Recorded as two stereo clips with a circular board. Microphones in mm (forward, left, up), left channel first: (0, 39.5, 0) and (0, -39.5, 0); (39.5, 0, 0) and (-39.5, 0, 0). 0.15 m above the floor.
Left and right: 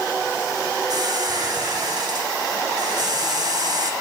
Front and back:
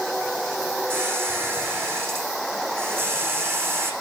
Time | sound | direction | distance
0.9 | a squeak | 115° right | 5 m